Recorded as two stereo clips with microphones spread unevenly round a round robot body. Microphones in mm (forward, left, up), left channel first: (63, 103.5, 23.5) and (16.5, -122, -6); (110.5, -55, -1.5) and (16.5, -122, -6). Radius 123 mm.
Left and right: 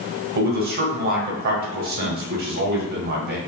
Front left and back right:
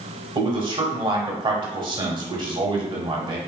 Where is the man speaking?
125° right, 1.3 m.